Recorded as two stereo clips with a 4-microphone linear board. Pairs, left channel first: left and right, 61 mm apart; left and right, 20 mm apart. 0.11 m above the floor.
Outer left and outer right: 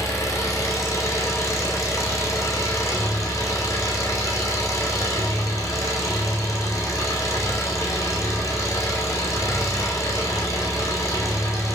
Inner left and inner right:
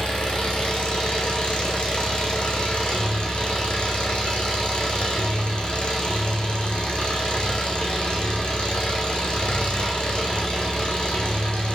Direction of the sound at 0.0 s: 60° left (ahead or behind).